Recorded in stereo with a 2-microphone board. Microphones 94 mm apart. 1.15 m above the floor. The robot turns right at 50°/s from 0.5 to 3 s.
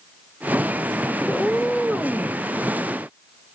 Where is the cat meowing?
155° left, 0.6 m; by 2.4 s 150° right, 0.6 m.